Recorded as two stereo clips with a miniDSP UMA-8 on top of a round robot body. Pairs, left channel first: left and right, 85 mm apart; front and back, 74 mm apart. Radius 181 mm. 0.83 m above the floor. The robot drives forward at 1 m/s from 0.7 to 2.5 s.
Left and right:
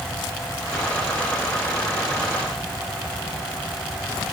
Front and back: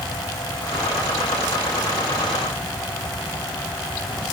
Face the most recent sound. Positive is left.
No sound to turn to.